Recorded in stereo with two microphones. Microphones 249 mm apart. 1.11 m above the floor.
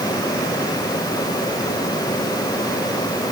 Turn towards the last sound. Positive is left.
No sound to turn to.